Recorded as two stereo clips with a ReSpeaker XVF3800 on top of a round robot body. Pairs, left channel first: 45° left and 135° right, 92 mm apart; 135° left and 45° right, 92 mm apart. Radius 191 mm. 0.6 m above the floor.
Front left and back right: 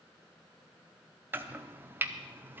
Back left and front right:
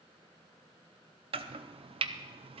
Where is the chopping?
65° right, 0.6 m.